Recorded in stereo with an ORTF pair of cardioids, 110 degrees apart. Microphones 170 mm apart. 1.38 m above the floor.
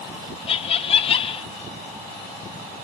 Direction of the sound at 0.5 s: 35° left.